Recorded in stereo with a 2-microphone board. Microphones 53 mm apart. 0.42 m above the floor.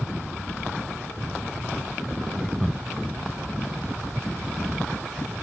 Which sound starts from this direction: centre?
Laughter, at 2.4 s.